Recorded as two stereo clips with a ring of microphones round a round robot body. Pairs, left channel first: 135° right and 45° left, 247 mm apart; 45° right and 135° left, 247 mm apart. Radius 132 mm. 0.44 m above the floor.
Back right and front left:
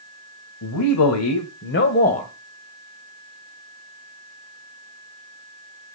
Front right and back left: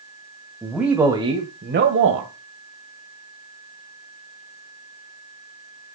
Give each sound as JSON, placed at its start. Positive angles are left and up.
{"t": 0.6, "sound": "a man speaking", "azimuth_deg": -135, "distance_m": 2.5}